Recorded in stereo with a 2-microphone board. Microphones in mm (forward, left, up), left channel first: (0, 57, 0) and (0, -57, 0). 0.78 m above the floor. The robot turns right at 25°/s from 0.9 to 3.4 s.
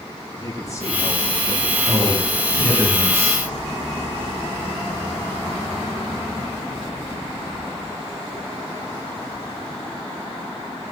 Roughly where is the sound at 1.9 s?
Ahead right.